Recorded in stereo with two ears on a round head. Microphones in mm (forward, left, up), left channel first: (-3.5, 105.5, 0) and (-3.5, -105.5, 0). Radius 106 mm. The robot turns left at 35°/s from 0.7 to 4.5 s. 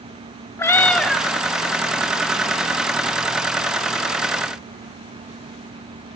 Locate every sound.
0.6 s a cat meowing: 10° left (ahead or behind), 0.7 m; by 1.2 s 5° right (ahead or behind), 0.7 m